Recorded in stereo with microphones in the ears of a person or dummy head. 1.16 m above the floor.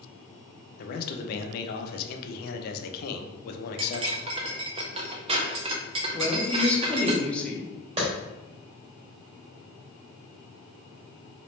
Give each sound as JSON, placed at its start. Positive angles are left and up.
{"t": 0.8, "sound": "a man speaking", "side_deg": 50, "distance_m": 0.6}
{"t": 3.8, "sound": "cutlery clinking", "side_deg": -35, "distance_m": 0.6}
{"t": 6.1, "sound": "a woman speaking", "side_deg": 5, "distance_m": 0.8}
{"t": 8.0, "sound": "a clap", "side_deg": -30, "distance_m": 1.4}